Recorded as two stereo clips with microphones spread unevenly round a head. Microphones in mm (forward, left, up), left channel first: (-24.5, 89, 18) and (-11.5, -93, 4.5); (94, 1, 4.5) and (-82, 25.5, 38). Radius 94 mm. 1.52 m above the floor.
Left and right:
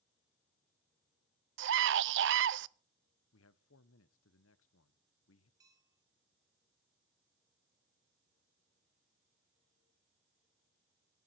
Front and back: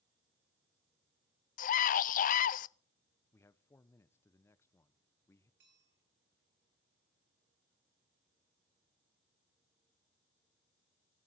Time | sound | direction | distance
1.6 | a scream | 55° right | 0.6 m
3.3 | a man speaking | 70° left | 1.0 m
5.6 | a bell | 160° right | 8 m